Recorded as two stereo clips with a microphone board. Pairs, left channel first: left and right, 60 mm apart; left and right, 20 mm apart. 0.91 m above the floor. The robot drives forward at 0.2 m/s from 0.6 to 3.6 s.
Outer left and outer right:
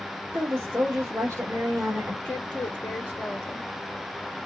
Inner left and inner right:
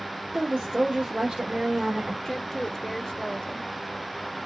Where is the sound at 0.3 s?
55° right (ahead or behind), 1.7 m; by 2.1 s 60° right (ahead or behind), 1.6 m.